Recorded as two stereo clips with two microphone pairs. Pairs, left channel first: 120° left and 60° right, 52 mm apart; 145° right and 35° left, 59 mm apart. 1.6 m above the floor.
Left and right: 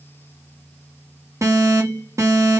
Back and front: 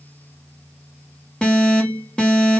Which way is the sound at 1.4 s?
75° right.